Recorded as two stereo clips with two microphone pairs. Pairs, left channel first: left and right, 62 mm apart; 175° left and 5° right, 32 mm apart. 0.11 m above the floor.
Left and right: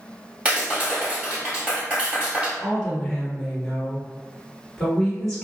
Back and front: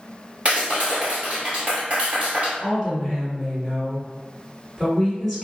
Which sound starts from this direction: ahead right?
A clap, at 0.5 s.